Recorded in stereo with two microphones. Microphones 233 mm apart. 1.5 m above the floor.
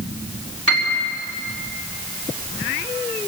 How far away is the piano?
About 4.5 m.